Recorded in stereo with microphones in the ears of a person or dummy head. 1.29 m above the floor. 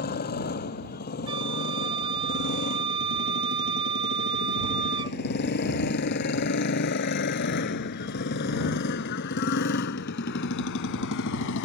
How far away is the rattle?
No rattle in this recording.